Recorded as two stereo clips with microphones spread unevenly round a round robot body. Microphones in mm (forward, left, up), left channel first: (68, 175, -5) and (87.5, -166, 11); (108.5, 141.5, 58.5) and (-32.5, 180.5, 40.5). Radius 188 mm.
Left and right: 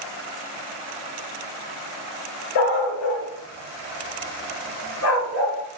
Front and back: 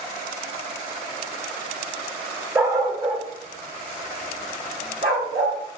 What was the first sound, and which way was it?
A dog barking, 85° left.